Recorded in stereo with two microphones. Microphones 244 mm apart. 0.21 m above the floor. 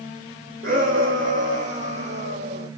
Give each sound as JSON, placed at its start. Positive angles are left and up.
{"t": 0.6, "sound": "a shout", "side_deg": -55, "distance_m": 7.5}